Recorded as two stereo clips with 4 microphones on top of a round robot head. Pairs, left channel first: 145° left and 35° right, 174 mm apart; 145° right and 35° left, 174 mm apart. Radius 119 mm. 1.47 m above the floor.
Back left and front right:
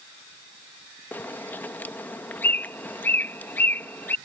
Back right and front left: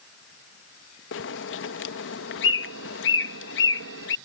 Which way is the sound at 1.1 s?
135° right.